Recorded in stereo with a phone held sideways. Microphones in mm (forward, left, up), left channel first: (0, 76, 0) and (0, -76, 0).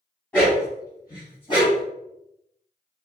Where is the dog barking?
15° left (ahead or behind), 2.5 m; by 1.9 s 35° left (ahead or behind), 3.5 m.